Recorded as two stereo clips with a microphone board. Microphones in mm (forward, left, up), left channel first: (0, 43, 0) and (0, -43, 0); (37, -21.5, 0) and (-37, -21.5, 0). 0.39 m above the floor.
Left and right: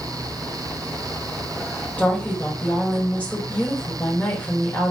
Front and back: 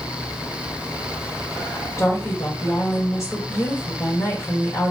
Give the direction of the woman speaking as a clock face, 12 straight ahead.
11 o'clock.